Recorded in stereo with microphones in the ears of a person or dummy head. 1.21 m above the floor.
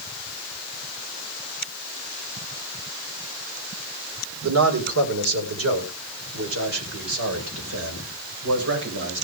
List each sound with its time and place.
4.4 s a man speaking: 80° right, 4 m; by 9.2 s 70° right (ahead or behind), 5.5 m